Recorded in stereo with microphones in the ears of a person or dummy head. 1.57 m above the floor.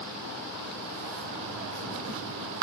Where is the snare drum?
No snare drum in this recording.